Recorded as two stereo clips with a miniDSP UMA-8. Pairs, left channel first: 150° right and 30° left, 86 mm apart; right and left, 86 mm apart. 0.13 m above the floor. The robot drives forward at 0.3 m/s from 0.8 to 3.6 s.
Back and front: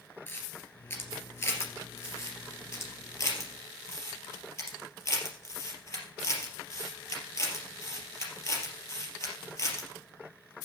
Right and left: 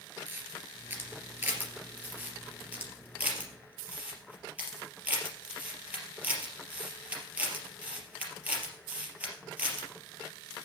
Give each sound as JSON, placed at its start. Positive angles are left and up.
{"t": 0.3, "sound": "a camera shutter", "azimuth_deg": 150, "distance_m": 2.5}